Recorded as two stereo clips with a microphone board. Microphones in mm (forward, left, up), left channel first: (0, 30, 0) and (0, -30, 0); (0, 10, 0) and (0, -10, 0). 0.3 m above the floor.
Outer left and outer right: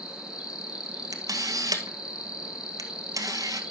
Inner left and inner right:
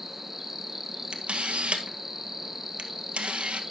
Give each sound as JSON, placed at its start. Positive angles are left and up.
{"t": 0.0, "sound": "an insect", "side_deg": -10, "distance_m": 1.7}
{"t": 1.1, "sound": "a camera shutter", "side_deg": -90, "distance_m": 1.5}